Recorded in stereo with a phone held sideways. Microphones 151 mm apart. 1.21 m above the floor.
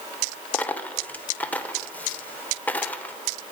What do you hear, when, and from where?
0.5 s a dropped coin: 10° left (ahead or behind), 0.9 m